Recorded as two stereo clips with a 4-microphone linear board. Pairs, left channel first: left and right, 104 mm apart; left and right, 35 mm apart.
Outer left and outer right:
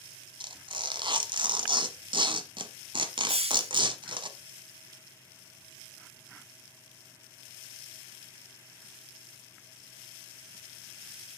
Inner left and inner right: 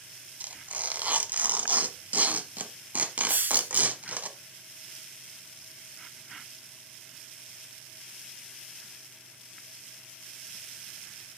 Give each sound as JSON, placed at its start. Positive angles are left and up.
{"t": 0.4, "sound": "tearing paper", "side_deg": -55, "distance_m": 0.9}
{"t": 3.3, "sound": "a hiss", "side_deg": -75, "distance_m": 0.6}